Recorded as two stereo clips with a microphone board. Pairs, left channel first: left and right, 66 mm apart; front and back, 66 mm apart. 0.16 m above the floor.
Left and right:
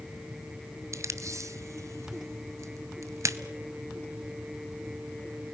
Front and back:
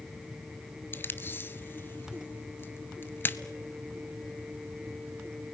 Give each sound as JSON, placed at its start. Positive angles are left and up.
{"t": 0.9, "sound": "tape being pulled", "azimuth_deg": -55, "distance_m": 1.0}